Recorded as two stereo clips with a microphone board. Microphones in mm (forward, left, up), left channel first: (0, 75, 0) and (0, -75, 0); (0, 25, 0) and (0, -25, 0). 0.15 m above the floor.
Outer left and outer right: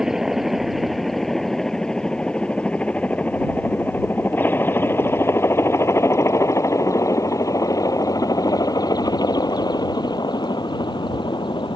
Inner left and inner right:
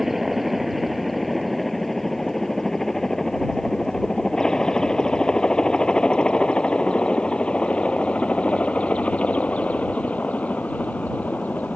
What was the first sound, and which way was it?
A helicopter, 5° right (ahead or behind).